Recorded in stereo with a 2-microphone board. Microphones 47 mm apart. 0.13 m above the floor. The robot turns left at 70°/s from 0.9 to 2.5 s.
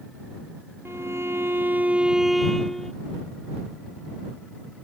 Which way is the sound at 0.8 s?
75° right.